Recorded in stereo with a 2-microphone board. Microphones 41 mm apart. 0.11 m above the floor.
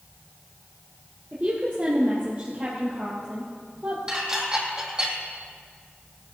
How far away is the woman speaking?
About 2.5 m.